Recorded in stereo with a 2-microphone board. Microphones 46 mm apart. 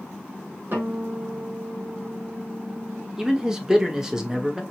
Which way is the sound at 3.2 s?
15° right (ahead or behind).